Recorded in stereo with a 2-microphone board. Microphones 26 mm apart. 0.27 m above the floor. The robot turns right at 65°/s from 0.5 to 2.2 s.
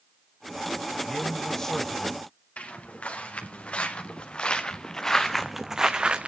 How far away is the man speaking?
About 1.0 m.